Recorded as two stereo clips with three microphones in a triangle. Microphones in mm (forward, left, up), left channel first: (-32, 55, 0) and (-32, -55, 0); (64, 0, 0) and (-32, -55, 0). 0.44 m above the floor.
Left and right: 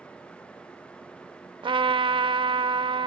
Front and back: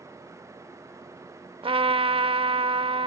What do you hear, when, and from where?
1.6 s a trumpet: 125° right, 0.6 m